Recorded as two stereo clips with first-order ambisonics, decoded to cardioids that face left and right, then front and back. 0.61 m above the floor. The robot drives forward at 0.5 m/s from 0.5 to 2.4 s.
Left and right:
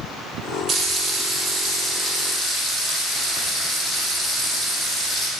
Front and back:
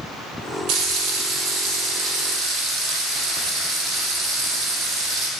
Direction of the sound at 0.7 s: 150° right.